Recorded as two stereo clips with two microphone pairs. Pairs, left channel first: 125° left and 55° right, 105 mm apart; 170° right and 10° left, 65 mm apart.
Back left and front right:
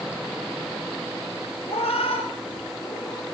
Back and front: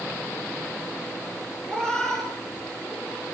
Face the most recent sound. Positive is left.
turn(degrees=95)